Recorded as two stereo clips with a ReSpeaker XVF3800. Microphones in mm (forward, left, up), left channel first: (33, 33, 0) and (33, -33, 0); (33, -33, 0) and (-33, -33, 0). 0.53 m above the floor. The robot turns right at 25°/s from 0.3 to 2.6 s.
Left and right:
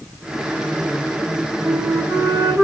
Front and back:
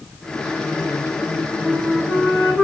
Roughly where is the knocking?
I don't hear knocking.